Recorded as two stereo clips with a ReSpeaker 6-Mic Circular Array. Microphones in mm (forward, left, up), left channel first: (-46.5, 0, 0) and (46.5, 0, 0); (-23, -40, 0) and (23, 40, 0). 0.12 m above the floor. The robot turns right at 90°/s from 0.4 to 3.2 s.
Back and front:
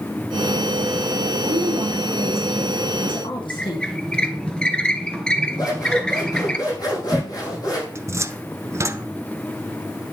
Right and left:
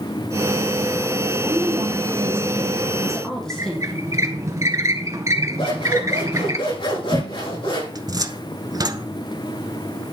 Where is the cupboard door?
45° left, 0.7 m.